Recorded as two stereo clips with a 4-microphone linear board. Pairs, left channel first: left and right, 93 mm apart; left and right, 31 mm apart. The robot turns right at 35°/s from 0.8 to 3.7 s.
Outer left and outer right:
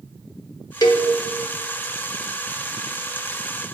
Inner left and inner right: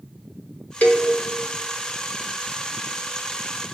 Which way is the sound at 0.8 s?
45° left (ahead or behind).